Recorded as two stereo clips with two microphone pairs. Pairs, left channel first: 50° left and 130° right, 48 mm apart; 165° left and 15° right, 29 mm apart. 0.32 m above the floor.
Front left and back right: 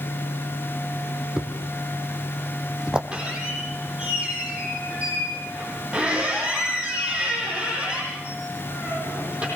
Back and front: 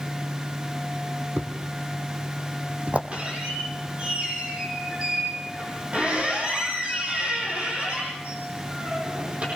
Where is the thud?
55° right, 2 m.